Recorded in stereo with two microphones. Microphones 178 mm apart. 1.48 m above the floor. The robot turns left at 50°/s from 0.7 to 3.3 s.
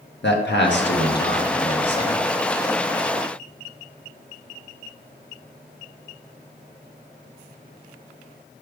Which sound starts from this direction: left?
A man speaking, at 0.2 s.